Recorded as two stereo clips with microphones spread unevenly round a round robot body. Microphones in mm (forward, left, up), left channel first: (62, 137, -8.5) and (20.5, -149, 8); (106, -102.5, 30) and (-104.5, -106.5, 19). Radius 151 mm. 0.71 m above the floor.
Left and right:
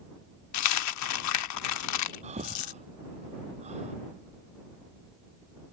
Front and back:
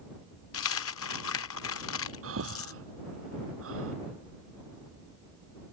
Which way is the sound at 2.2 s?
170° right.